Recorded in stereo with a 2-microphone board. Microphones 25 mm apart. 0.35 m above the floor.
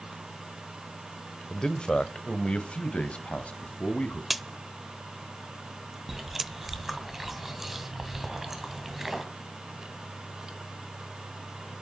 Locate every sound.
1.5 s a man speaking: 30° left (ahead or behind), 1.2 m; by 4.2 s 60° left (ahead or behind), 3 m
4.3 s a crack: 5° right (ahead or behind), 0.5 m
6.1 s chewing: 10° right (ahead or behind), 2 m